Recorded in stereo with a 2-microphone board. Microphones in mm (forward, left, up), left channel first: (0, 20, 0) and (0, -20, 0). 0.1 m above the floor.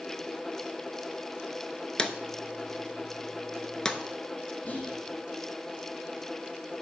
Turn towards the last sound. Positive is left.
turn(degrees=40)  # may be behind; listen again after turning